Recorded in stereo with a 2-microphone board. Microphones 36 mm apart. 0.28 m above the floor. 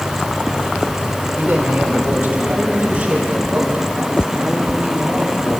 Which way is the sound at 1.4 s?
40° right (ahead or behind).